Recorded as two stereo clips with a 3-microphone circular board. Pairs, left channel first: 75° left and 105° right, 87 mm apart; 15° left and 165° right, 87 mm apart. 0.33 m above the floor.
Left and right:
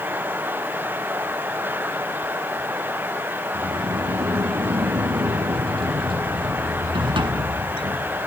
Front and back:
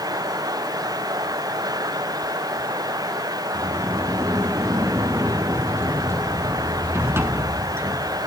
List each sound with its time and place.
3.5 s a sliding door: 105° right, 0.9 m